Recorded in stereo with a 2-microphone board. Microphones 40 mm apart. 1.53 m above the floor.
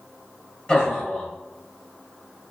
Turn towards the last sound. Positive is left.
turn(degrees=20)  # may be behind; listen again after turning